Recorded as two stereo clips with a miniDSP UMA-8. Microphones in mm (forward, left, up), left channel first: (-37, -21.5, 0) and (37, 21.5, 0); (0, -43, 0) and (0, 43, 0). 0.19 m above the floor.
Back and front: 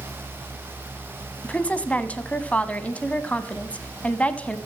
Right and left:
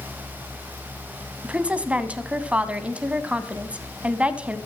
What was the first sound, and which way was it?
A woman speaking, 150° left.